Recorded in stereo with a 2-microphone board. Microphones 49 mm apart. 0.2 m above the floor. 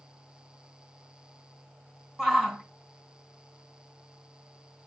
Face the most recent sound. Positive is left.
turn(degrees=0)  # may be behind; listen again after turning